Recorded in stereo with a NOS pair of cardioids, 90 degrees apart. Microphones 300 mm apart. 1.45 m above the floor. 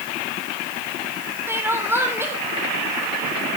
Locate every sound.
1.5 s crying: 10° right, 3.5 m